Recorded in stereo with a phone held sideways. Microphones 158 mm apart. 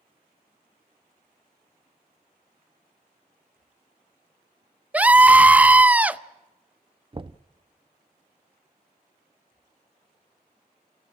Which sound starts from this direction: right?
Knocking, at 7.1 s.